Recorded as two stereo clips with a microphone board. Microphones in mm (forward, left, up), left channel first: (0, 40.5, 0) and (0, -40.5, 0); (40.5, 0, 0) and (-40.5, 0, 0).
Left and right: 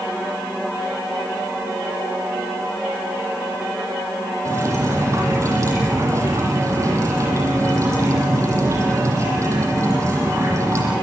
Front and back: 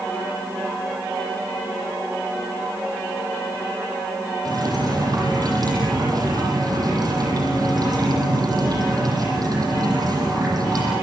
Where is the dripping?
140° right, 9.5 m.